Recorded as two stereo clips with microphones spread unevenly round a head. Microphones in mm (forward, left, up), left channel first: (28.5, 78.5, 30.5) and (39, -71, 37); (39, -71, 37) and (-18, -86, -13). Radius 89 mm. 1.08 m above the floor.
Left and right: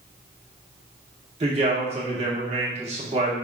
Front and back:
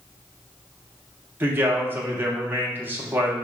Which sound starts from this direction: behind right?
A man speaking, at 1.4 s.